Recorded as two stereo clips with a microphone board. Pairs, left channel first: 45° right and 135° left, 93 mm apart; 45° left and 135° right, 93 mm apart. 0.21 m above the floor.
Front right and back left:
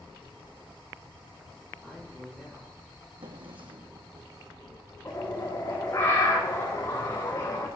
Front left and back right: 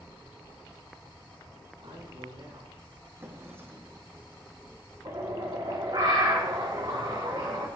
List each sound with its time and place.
1.8 s a man speaking: 140° right, 6.5 m
3.2 s a drawer: 160° left, 2.5 m
5.0 s a bird: 100° right, 4.5 m